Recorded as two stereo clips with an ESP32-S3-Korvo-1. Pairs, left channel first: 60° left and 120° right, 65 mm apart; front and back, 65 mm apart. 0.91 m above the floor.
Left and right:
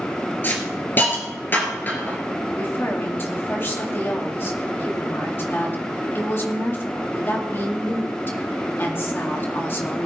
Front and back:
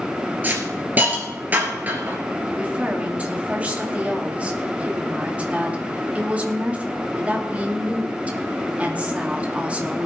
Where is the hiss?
120° left, 3 m.